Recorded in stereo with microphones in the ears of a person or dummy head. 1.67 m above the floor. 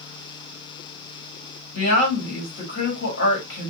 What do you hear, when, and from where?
1.7 s a woman speaking: 65° left (ahead or behind), 1.6 m